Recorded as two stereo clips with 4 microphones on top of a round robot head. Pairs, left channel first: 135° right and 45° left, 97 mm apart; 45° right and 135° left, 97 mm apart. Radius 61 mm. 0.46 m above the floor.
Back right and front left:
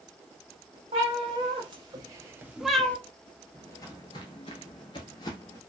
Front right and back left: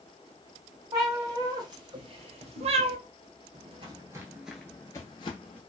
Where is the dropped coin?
No dropped coin in this recording.